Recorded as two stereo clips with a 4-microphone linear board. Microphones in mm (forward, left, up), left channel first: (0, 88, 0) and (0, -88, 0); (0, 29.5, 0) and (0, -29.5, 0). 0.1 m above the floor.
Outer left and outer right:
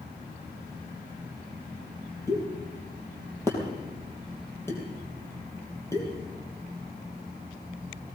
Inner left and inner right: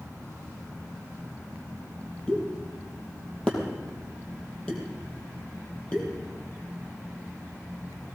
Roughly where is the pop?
Centre.